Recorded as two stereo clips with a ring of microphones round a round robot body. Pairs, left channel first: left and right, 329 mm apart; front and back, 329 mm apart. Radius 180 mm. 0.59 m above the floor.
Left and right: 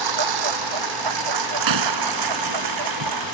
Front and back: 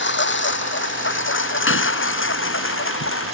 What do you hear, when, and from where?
0.0 s a lawn mower: 55° right
1.7 s a gunshot: 55° right